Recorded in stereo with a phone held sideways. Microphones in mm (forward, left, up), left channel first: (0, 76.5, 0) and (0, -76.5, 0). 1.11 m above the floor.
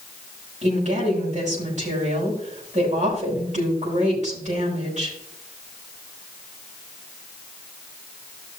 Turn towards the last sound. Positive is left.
turn(degrees=-50)  # may be behind; listen again after turning